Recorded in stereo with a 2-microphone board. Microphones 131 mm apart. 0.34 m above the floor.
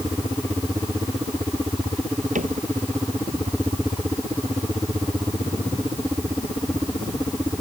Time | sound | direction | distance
2.4 | a cupboard door | 80° right | ?